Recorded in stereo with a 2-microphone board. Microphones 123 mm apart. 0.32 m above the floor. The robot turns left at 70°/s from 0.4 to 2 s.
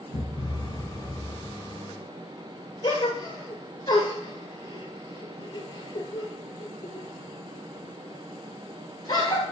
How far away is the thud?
About 2 m.